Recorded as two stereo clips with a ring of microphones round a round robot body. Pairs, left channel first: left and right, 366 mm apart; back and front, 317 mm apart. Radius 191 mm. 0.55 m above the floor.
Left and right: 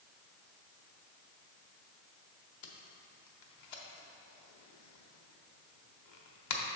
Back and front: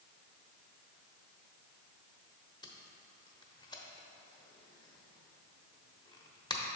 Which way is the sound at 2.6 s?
100° left.